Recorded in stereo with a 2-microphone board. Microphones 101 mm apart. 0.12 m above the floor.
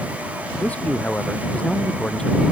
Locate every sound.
0.6 s a man speaking: 15° left (ahead or behind); by 2.4 s 5° left (ahead or behind)